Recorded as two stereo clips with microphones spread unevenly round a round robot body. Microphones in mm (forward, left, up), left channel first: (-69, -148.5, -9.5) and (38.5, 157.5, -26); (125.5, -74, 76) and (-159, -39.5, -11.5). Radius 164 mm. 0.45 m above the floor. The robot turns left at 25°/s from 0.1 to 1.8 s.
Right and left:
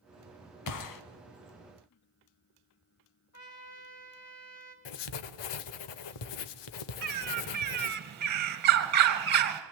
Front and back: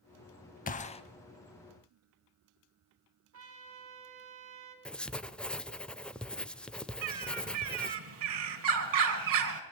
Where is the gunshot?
70° right, 1.0 m; by 1.0 s 80° right, 1.0 m.